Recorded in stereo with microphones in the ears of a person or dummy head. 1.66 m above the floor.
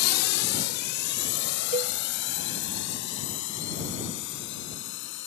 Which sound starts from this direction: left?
A drone, at 0.0 s.